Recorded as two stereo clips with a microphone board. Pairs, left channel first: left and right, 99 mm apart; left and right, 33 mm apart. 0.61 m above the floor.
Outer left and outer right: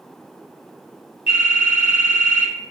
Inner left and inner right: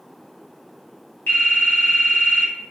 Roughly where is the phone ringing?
Left.